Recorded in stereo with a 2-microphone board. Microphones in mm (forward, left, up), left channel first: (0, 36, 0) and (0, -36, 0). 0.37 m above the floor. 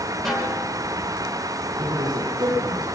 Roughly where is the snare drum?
Centre.